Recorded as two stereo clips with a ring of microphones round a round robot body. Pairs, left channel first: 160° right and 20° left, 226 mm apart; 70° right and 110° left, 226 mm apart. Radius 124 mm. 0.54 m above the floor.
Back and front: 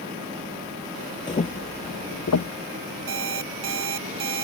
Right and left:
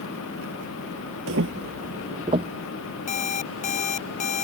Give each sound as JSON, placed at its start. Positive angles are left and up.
{"t": 1.3, "sound": "footsteps", "azimuth_deg": 135}
{"t": 3.1, "sound": "an alarm clock", "azimuth_deg": -5}